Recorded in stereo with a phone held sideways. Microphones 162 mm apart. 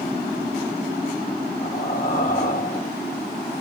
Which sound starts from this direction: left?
Breathing, at 1.6 s.